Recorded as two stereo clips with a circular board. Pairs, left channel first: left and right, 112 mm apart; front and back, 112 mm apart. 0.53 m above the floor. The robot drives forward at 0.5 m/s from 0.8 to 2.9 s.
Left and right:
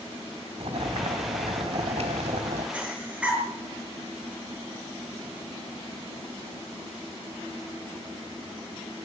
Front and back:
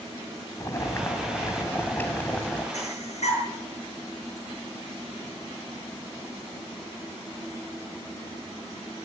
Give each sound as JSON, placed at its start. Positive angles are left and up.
{"t": 0.6, "sound": "boiling", "azimuth_deg": -60, "distance_m": 3.0}
{"t": 2.7, "sound": "breathing", "azimuth_deg": -10, "distance_m": 6.5}